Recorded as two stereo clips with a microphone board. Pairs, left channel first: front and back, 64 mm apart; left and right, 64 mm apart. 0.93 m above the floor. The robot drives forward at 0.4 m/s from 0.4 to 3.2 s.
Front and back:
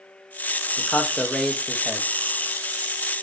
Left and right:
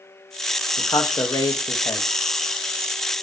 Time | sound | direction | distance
0.8 | a man speaking | 60° left | 0.7 m